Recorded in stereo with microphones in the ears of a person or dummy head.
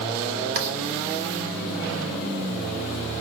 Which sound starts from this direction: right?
Writing, at 0.6 s.